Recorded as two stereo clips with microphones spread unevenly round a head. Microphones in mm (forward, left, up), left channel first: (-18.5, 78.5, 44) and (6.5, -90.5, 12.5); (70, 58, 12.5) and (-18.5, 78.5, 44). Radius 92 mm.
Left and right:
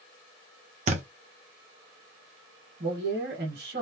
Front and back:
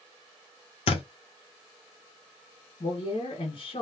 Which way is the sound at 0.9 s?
30° right.